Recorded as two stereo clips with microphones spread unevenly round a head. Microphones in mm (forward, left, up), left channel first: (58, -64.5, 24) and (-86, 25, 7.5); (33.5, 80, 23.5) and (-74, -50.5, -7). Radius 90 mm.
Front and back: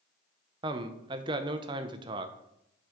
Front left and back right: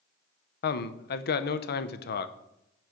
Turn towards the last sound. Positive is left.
turn(degrees=85)